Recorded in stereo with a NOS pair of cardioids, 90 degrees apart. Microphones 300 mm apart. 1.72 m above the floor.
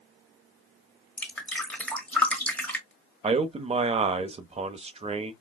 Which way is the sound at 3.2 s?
20° right.